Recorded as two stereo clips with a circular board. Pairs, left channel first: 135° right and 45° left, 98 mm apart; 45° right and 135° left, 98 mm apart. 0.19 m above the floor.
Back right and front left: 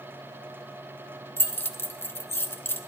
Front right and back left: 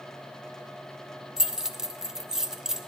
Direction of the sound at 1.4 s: 145° right.